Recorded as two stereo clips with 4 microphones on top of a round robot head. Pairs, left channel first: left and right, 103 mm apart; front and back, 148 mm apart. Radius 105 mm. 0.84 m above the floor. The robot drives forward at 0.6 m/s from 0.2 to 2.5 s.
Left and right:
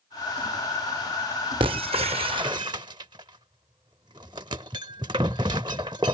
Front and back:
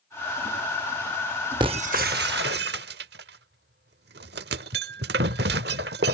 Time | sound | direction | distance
1.6 | breaking glass | 120° right | ?